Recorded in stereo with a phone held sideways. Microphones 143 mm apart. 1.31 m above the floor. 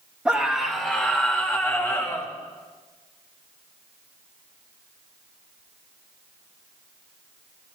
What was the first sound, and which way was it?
A scream, 5° right (ahead or behind).